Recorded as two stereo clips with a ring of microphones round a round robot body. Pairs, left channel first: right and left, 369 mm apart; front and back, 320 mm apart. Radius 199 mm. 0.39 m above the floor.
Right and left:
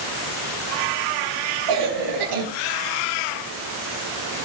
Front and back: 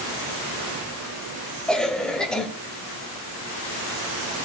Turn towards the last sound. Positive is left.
turn(degrees=90)